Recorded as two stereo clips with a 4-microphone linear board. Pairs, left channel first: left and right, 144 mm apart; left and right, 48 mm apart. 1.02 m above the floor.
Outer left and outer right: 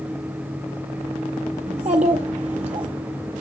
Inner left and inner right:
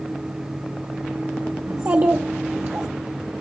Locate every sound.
1.7 s a child speaking: 50° right (ahead or behind), 0.6 m